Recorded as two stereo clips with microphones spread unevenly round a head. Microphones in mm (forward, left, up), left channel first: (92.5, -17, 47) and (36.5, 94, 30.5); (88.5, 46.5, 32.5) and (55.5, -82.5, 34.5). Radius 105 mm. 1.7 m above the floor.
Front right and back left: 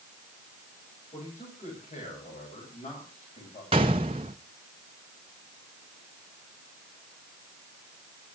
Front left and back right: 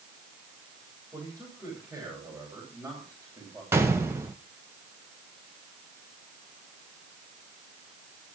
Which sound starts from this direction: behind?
A gunshot, at 3.7 s.